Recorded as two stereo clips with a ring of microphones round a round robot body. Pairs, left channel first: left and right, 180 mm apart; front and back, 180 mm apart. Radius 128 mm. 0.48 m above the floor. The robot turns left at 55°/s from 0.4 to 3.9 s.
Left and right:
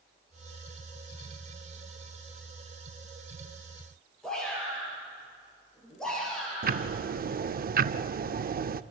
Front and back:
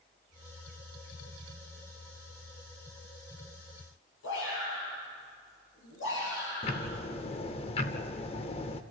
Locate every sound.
4.2 s a shout: 5° left, 9.5 m
6.6 s ticking: 60° right, 0.6 m